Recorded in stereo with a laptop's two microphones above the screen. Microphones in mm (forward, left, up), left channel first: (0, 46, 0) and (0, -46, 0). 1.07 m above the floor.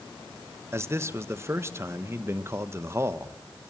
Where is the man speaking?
30° right (ahead or behind), 0.9 m.